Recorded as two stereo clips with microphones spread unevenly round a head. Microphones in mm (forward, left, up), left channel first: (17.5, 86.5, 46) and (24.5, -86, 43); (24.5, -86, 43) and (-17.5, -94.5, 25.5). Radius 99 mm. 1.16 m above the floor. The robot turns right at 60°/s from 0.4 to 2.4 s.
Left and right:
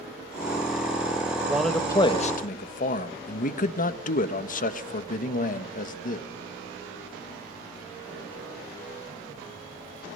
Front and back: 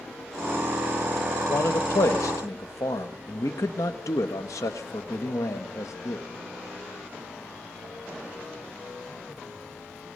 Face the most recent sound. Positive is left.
turn(degrees=50)